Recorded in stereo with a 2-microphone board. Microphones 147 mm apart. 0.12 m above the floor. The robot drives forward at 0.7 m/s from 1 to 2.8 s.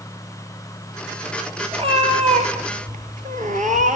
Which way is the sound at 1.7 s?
40° right (ahead or behind).